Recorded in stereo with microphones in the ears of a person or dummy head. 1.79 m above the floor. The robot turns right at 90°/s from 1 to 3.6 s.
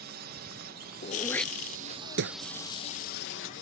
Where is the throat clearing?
40° left (ahead or behind); by 2.4 s 80° right.